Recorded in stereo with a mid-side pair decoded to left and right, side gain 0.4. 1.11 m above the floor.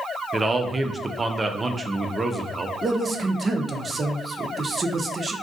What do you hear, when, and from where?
0.3 s a man speaking: 30° right, 0.5 m
2.8 s a man speaking: 40° right, 0.6 m